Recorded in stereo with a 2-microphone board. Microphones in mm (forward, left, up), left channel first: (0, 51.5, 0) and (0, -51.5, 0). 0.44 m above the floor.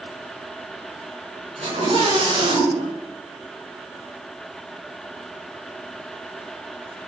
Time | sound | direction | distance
1.6 | a scream | 80° right | 5 m